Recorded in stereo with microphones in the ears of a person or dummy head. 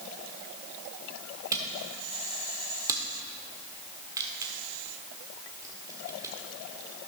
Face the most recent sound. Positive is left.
turn(degrees=-15)  # may be behind; listen again after turning